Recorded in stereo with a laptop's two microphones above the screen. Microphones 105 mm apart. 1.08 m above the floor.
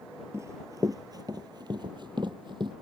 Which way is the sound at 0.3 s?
25° right (ahead or behind).